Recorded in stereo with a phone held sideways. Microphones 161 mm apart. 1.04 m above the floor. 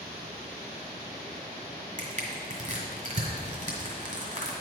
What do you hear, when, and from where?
2.0 s crushing: 50° right (ahead or behind), 1.8 m